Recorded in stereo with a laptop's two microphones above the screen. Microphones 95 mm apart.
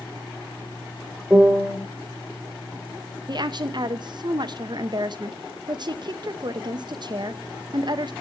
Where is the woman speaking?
50° right (ahead or behind), 0.8 m.